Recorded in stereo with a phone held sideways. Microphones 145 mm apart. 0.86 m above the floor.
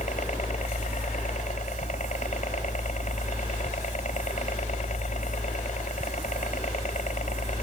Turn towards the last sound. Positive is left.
turn(degrees=60)  # may be behind; listen again after turning